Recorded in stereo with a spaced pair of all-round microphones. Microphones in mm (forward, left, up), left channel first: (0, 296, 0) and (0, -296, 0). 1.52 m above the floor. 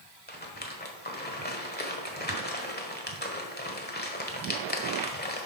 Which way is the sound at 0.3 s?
15° left (ahead or behind).